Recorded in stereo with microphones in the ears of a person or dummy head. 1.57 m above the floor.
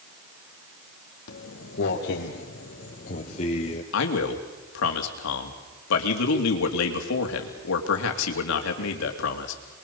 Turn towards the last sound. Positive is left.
turn(degrees=75)  # may be behind; listen again after turning